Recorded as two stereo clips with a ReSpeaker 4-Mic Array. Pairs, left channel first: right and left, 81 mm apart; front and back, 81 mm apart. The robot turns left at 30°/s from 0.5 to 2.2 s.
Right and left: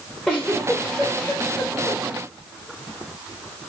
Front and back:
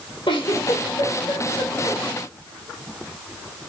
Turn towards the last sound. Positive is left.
turn(degrees=-65)